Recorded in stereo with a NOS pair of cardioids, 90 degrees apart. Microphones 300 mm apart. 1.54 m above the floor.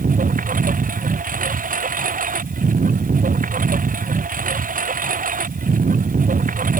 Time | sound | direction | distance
0.0 | a lawn mower | 25° right | ?